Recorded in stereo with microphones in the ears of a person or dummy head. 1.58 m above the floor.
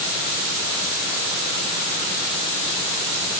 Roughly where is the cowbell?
I don't hear a cowbell.